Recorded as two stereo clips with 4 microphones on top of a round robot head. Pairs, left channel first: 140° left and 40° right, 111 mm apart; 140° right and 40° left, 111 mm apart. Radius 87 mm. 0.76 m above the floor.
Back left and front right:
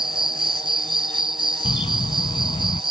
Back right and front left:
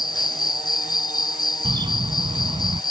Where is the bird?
95° left.